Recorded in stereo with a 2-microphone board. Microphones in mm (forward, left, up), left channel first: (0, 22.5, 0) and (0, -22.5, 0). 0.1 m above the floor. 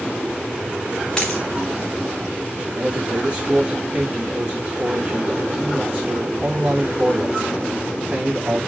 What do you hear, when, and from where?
1.2 s a dropped coin: 10° left (ahead or behind), 1.9 m
2.7 s a man speaking: 30° right (ahead or behind), 6.5 m